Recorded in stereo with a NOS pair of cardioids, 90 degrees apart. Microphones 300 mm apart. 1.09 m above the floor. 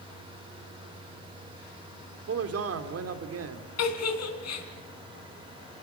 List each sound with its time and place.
0.0 s a fan: 15° right, 4 m
2.3 s a man speaking: 55° right, 3 m
3.8 s a giggle: 60° left, 3.5 m